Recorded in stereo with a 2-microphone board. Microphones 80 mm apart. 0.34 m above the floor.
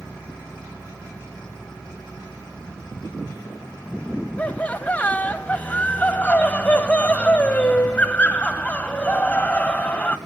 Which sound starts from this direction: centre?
Laughter, at 4.4 s.